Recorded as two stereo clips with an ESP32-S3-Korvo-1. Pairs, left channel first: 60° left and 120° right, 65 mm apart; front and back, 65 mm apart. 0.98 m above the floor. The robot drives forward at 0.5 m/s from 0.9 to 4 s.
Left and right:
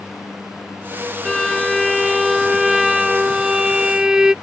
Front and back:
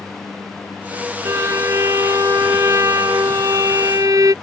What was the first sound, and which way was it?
A violin, 140° left.